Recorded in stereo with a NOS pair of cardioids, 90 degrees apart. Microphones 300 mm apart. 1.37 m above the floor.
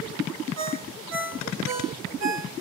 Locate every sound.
0.6 s a ringtone: 60° right, 2.5 m